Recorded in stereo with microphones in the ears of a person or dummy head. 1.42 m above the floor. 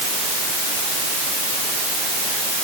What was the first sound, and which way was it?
Only background noise.